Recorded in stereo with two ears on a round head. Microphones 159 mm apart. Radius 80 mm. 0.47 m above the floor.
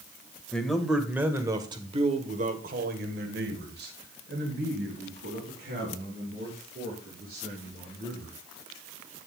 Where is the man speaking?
5° left (ahead or behind), 2.5 m; by 8.4 s 60° right (ahead or behind), 7.5 m.